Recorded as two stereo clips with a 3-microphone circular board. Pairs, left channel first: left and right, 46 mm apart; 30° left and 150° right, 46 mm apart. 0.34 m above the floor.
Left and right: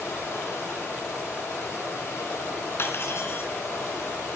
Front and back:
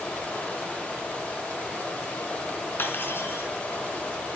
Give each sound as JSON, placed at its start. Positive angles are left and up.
{"t": 0.0, "sound": "running water", "azimuth_deg": 90, "distance_m": 6.5}
{"t": 2.8, "sound": "cutlery clinking", "azimuth_deg": 65, "distance_m": 2.5}